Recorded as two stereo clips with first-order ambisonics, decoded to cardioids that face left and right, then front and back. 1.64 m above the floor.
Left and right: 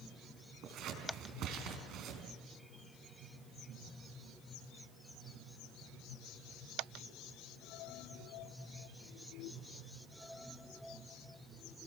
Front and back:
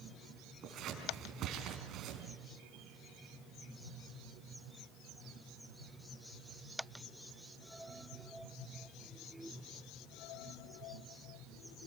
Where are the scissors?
130° right, 4 m.